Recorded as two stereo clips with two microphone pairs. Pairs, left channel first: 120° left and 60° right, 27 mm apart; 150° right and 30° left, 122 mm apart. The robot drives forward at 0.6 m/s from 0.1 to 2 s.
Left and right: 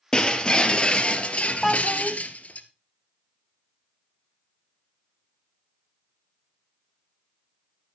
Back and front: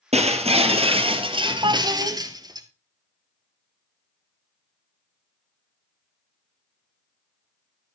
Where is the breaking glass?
55° left, 2 m; by 2.6 s 90° left, 1.8 m.